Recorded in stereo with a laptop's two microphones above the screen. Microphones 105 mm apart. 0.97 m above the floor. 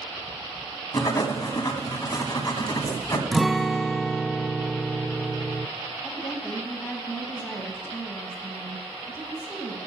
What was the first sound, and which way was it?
Writing, 35° left (ahead or behind).